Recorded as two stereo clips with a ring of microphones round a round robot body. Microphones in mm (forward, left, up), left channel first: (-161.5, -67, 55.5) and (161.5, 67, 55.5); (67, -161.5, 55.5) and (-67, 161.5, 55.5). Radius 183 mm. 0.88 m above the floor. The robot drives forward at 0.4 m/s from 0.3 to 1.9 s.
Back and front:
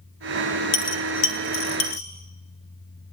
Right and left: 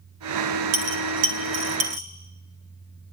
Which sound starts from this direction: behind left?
A dropped coin, at 0.7 s.